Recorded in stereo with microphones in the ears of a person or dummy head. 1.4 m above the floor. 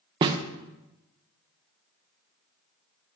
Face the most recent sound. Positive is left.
turn(degrees=-25)  # may be behind; listen again after turning